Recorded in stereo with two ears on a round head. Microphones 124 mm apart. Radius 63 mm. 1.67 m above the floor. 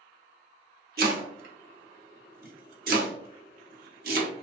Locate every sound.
1.0 s chopping: 70° right (ahead or behind), 0.6 m